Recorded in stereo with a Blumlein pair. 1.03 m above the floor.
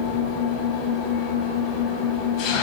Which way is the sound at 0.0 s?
35° left.